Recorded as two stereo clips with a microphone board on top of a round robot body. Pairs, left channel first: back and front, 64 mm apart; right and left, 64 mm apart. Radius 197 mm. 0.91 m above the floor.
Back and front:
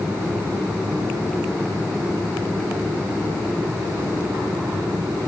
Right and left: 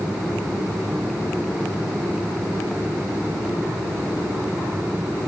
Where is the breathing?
No breathing in this recording.